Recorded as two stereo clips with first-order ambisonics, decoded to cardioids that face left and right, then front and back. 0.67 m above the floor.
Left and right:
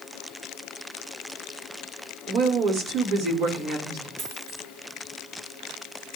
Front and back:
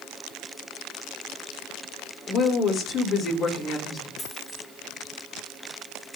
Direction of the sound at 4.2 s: 75° right.